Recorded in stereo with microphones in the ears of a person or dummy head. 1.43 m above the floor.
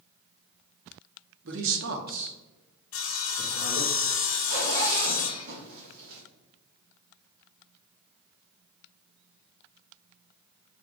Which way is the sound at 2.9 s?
60° left (ahead or behind).